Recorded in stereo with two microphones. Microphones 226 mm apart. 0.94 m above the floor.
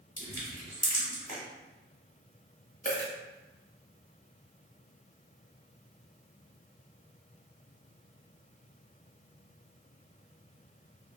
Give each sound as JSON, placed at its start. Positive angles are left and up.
{"t": 0.2, "sound": "crushing", "side_deg": 35, "distance_m": 1.6}
{"t": 2.9, "sound": "a dropped coin", "side_deg": 40, "distance_m": 0.9}